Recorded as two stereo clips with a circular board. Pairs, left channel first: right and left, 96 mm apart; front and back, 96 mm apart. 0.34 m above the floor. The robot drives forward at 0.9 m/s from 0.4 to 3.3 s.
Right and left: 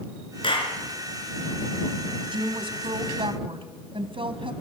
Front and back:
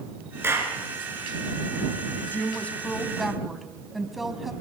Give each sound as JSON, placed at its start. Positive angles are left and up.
{"t": 0.4, "sound": "a clap", "azimuth_deg": -115, "distance_m": 4.5}
{"t": 2.3, "sound": "a woman speaking", "azimuth_deg": 65, "distance_m": 2.5}